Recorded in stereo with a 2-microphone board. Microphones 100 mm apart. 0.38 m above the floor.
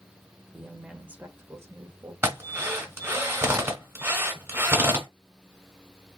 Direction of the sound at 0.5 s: Centre (ahead or behind).